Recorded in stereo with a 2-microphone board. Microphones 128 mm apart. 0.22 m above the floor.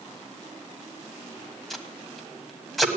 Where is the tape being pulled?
Centre (ahead or behind), 1.2 m.